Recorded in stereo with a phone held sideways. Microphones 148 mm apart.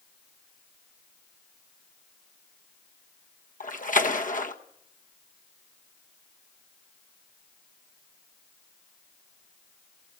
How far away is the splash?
About 1.3 m.